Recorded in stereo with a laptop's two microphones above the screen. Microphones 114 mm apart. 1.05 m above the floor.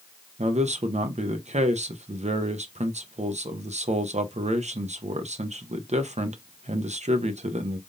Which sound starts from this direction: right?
A man speaking, at 0.4 s.